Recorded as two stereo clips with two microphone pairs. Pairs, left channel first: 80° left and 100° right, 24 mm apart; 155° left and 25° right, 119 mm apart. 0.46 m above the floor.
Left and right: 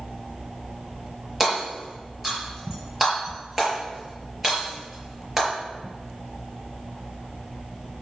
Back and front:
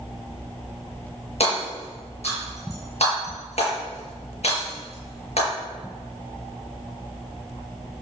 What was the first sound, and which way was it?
Hammering, straight behind.